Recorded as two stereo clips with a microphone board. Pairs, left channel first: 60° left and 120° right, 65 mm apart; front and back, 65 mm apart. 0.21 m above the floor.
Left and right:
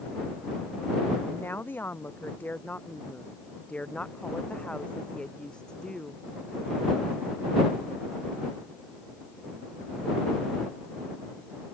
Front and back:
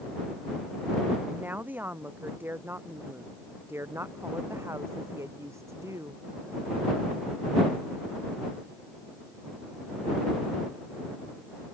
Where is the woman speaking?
120° left; by 6.2 s 140° left.